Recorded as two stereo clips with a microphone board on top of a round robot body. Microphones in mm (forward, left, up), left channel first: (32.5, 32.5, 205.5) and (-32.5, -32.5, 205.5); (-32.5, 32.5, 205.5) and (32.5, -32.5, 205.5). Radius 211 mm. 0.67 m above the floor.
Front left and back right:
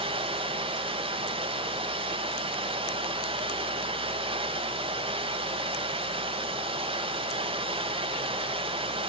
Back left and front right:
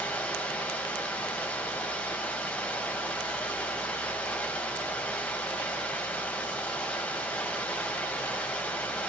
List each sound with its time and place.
0.0 s running water: 150° right, 3.5 m